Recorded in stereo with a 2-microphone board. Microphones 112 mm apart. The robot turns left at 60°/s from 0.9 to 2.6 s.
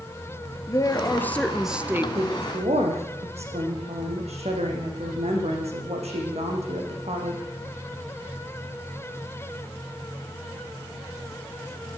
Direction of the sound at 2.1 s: 60° right (ahead or behind).